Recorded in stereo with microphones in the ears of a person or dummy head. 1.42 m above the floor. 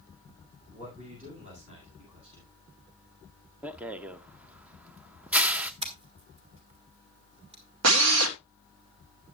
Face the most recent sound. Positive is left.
turn(degrees=-75)  # may be behind; listen again after turning